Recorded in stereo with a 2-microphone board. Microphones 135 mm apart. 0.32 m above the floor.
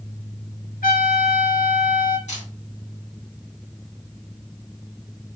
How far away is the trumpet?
About 1.4 m.